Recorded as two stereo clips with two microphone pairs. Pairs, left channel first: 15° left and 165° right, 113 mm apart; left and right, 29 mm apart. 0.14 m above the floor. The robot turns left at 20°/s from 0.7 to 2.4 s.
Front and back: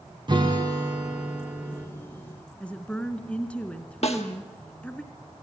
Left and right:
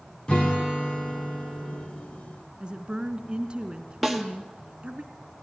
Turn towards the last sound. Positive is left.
turn(degrees=-5)